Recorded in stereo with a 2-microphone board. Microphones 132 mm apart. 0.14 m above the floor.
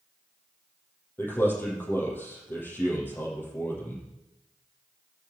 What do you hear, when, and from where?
1.2 s a man speaking: 15° left (ahead or behind), 4 m